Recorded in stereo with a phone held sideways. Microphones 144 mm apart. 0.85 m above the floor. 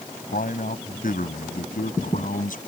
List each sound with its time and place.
0.3 s a man speaking: 75° left (ahead or behind); by 2.6 s 70° left (ahead or behind)